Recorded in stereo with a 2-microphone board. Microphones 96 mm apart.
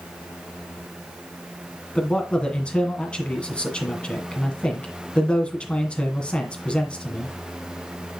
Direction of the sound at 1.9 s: 10° left (ahead or behind).